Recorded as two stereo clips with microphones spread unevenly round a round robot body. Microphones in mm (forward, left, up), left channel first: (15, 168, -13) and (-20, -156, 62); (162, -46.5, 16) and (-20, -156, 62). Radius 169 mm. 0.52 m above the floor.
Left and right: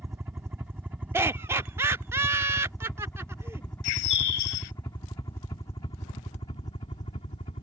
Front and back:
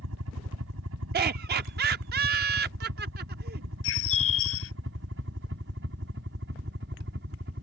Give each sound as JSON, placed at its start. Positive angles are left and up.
{"t": 0.0, "sound": "a helicopter", "azimuth_deg": 180}
{"t": 1.1, "sound": "laughter", "azimuth_deg": 170}
{"t": 3.8, "sound": "a bird", "azimuth_deg": 70}